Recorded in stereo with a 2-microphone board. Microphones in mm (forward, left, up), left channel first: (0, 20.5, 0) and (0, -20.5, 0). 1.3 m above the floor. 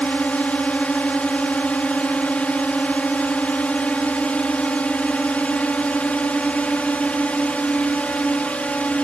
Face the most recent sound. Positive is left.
turn(degrees=35)  # may be behind; listen again after turning